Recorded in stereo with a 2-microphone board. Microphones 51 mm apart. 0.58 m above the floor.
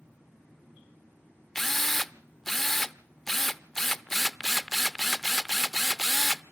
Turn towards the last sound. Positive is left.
turn(degrees=5)  # may be behind; listen again after turning